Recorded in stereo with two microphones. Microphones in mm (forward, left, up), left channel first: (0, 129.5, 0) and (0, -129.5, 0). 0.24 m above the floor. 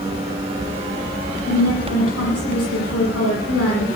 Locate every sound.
1.5 s a woman speaking: 60° left (ahead or behind), 8 m